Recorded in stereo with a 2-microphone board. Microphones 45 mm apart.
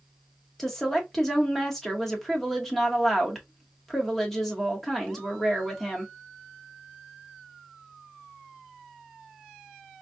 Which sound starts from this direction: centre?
A woman speaking, at 0.6 s.